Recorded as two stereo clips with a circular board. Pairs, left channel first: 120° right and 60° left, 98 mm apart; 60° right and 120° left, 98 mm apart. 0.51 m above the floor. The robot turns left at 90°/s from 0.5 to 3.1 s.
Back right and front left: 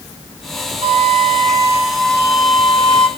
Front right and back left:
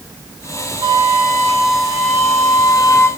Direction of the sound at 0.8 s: 75° left.